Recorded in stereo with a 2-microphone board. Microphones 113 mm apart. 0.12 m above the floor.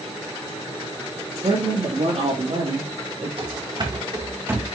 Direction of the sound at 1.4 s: 65° right (ahead or behind).